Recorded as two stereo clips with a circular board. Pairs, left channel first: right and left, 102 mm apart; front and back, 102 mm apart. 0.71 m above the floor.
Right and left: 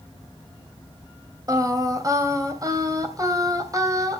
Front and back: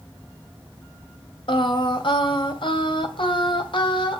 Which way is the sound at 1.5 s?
35° left.